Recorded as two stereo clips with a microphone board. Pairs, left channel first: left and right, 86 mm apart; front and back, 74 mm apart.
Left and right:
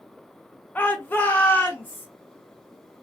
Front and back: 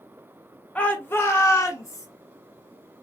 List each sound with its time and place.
0.8 s a shout: 50° left, 0.7 m; by 2.1 s 25° left, 1.3 m